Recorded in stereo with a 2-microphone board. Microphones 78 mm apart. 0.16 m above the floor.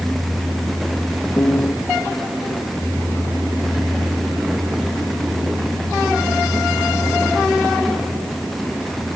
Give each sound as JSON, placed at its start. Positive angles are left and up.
{"t": 1.4, "sound": "a piano", "side_deg": 45}